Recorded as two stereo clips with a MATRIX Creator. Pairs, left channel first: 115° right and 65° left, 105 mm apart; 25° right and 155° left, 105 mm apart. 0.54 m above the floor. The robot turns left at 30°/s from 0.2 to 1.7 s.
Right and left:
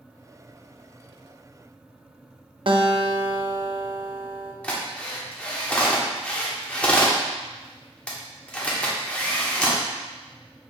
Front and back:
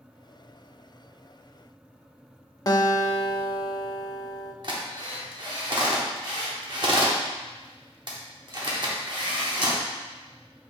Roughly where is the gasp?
No gasp in this recording.